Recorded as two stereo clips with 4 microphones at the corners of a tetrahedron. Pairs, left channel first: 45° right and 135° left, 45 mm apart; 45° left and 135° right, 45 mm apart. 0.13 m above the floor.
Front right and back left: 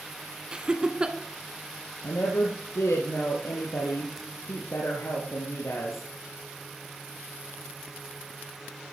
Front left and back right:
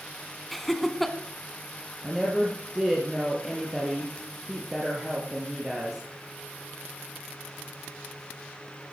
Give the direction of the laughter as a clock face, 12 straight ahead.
8 o'clock.